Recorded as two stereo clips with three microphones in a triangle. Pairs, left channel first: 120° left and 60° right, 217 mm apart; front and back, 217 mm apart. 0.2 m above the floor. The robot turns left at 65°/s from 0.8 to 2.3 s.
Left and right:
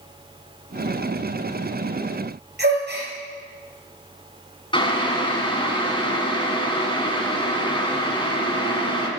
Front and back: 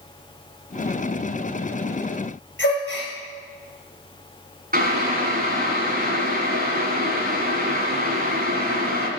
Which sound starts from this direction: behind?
Boiling, at 4.7 s.